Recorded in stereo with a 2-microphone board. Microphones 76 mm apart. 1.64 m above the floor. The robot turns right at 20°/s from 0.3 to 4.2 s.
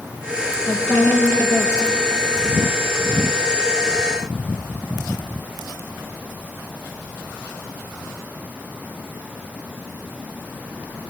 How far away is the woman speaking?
About 2.5 m.